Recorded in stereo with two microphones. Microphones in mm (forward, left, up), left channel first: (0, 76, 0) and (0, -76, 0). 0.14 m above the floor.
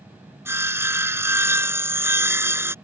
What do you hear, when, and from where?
0.5 s sawing: 15° right (ahead or behind)